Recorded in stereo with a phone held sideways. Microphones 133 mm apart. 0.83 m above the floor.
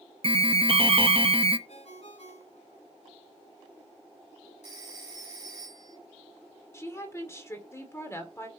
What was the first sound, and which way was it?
An alarm, 45° right (ahead or behind).